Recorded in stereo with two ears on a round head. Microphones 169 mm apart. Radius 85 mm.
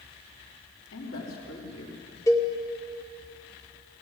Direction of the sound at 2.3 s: 15° left (ahead or behind).